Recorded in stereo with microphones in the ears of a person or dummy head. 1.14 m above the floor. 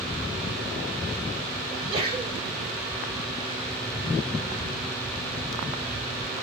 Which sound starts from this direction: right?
A sneeze, at 1.7 s.